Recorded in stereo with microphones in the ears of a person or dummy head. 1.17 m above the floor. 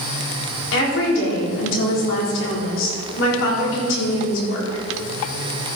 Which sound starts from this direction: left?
A woman speaking, at 0.7 s.